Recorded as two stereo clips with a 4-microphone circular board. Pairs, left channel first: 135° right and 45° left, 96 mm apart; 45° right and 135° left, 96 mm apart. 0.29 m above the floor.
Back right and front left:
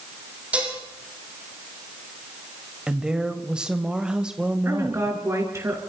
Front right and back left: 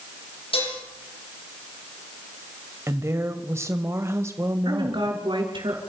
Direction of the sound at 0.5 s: 30° right.